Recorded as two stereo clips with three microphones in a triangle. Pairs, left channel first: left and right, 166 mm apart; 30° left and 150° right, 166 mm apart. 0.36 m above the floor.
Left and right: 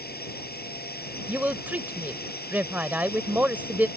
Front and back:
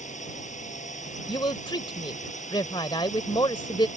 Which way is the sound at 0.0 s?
70° left.